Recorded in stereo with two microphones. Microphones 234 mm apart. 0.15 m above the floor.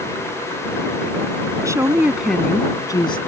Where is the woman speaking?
15° right (ahead or behind); by 3.2 s 20° left (ahead or behind).